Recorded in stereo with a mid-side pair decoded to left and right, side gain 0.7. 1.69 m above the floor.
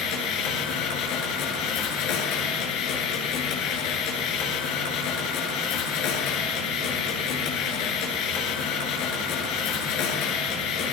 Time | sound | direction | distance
0.0 | a machine running | 60° left | 7.5 m